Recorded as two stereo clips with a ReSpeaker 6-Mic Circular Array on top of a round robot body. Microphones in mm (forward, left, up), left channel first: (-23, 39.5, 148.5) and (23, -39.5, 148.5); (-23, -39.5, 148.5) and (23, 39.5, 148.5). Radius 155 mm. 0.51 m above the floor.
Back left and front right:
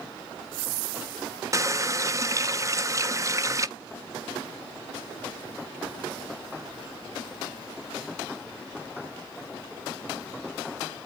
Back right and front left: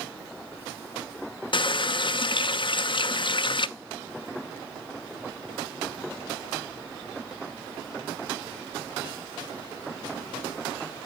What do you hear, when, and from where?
1.5 s a running tap: 110° right, 0.6 m